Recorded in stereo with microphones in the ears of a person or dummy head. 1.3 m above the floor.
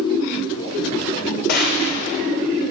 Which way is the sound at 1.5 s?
55° left (ahead or behind).